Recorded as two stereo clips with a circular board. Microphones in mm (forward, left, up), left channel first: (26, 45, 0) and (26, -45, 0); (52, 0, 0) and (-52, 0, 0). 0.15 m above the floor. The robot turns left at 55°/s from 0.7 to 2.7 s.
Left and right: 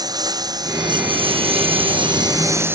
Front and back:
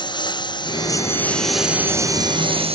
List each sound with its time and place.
0.0 s a lawn mower: 45° right; by 2.8 s 155° right